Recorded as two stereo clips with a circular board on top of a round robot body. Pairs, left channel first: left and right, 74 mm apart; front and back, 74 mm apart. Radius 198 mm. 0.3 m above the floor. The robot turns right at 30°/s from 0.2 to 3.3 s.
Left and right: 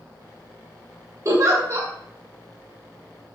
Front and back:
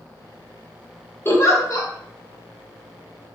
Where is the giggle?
55° right, 1.3 m; by 1.9 s 35° right, 1.3 m.